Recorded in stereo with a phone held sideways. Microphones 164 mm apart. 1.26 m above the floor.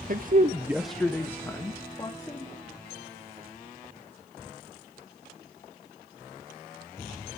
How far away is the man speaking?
About 0.7 m.